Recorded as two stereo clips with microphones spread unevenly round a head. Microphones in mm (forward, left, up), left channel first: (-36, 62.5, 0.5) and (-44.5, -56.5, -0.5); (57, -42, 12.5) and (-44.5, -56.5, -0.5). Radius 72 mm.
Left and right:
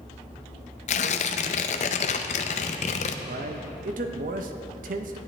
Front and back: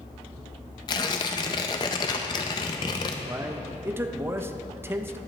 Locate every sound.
0.9 s tearing paper: 60° left, 0.5 m
3.2 s a man speaking: 105° right, 1.0 m